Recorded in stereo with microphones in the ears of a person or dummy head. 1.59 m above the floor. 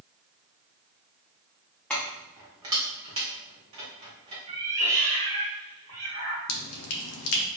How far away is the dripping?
About 0.6 m.